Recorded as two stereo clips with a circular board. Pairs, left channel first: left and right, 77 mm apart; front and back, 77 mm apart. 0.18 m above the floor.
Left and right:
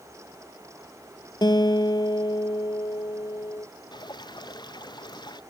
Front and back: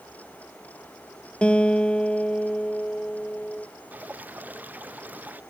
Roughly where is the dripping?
Left.